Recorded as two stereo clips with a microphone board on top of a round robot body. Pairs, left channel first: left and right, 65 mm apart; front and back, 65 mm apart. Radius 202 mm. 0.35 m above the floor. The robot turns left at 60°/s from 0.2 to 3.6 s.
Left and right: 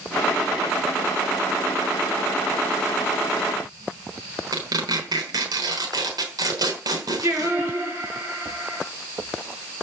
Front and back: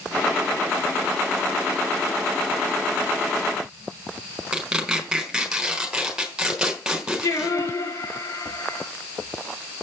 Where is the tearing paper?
100° right, 4.5 m.